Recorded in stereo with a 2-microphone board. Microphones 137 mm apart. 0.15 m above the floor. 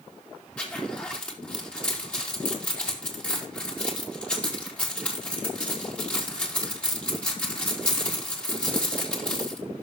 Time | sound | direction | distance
0.6 | a zipper | 10° left (ahead or behind) | 4 m